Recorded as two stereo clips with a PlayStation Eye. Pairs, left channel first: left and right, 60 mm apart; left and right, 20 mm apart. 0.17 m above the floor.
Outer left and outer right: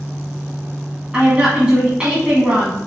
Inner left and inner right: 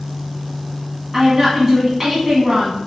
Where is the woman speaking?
15° right (ahead or behind), 1.5 m.